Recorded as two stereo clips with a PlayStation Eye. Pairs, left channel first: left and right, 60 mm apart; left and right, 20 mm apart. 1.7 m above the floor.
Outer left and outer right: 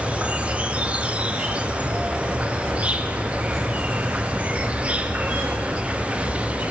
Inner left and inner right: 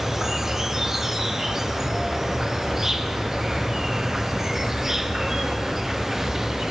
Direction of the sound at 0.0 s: 20° right (ahead or behind).